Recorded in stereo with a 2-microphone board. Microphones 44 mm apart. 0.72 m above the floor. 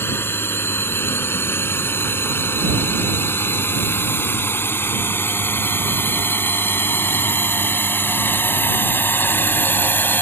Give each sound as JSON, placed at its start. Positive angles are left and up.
{"t": 0.0, "sound": "a drone", "side_deg": 65}